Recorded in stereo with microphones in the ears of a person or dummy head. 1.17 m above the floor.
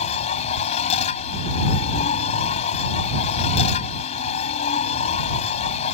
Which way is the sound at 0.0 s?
45° left (ahead or behind).